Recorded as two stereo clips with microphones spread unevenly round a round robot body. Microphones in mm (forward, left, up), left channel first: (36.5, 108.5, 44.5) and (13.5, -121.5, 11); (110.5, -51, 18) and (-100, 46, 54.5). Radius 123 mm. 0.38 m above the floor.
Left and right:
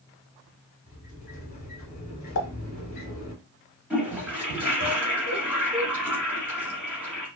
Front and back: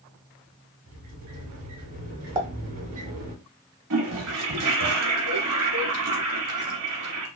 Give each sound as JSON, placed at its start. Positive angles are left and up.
{"t": 0.9, "sound": "a sliding door", "azimuth_deg": 135, "distance_m": 1.2}
{"t": 2.4, "sound": "a pop", "azimuth_deg": 85, "distance_m": 0.8}
{"t": 3.9, "sound": "a toilet flushing", "azimuth_deg": 180, "distance_m": 1.2}